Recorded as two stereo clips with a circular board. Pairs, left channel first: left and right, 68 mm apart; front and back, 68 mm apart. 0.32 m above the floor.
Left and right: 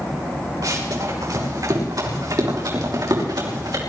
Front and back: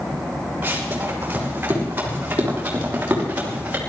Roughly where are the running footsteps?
Behind right.